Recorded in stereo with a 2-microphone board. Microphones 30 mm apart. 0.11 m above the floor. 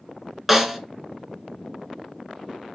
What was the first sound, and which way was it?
A snare drum, 5° right (ahead or behind).